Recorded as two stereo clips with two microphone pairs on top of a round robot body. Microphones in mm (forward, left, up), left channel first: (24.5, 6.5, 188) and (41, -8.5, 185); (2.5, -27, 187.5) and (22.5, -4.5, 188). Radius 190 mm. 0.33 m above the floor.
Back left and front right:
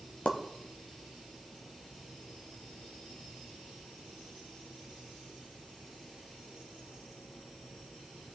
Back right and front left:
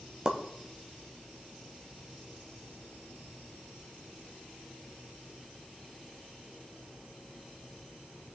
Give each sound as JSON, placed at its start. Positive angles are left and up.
{"t": 0.2, "sound": "a pop", "azimuth_deg": 110, "distance_m": 0.7}